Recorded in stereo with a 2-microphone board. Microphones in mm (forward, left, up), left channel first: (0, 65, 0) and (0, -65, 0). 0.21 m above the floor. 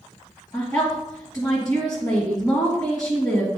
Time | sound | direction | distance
0.5 | a woman speaking | 25° left (ahead or behind) | 2.0 m